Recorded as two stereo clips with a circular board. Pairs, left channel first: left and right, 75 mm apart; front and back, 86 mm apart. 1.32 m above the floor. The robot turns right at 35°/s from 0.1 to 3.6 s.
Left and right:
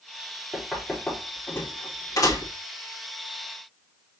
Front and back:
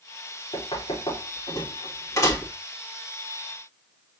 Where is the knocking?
5° right, 4 m; by 2.5 s 65° left, 4 m.